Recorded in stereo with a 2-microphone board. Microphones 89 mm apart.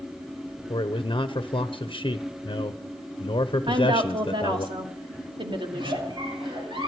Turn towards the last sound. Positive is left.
turn(degrees=-65)  # may be behind; listen again after turning